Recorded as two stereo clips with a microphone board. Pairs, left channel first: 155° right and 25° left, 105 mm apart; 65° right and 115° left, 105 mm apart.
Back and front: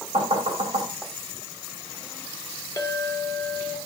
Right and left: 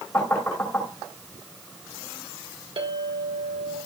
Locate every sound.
0.1 s knocking: 10° left, 3 m
2.8 s a clink: 140° left, 1.5 m